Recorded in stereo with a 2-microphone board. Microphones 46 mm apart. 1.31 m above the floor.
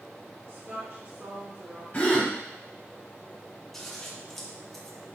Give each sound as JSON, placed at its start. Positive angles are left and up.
{"t": 0.5, "sound": "a woman speaking", "side_deg": -70, "distance_m": 2.0}
{"t": 1.9, "sound": "a gasp", "side_deg": 30, "distance_m": 1.4}
{"t": 3.7, "sound": "scissors", "side_deg": 5, "distance_m": 0.8}